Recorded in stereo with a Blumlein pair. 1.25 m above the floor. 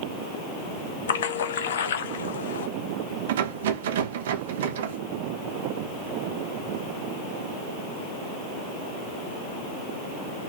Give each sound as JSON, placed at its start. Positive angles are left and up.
{"t": 1.1, "sound": "a splash", "azimuth_deg": 60, "distance_m": 0.8}
{"t": 3.3, "sound": "a rattle", "azimuth_deg": -55, "distance_m": 0.8}